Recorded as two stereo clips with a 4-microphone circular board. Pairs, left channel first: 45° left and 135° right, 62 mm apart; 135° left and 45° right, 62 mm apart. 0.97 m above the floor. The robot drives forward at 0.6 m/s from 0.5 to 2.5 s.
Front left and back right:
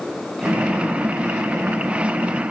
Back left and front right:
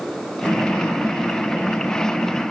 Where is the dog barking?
I don't hear a dog barking.